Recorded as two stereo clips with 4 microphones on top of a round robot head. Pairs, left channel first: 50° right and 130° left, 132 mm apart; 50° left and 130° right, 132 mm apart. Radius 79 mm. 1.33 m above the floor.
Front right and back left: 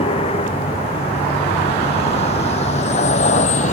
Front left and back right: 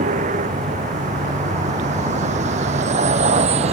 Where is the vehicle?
100° right; by 3.7 s 85° right.